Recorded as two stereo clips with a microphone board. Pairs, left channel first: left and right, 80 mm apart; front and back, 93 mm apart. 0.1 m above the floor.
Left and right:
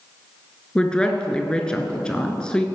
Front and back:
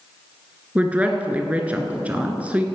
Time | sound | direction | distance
0.8 | a woman speaking | 145° left | 1.1 m